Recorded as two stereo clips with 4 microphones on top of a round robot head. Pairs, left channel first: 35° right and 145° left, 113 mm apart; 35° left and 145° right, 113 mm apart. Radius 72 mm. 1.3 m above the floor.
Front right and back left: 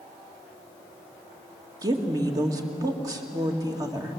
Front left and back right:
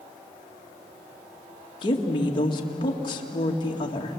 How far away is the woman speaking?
About 2 m.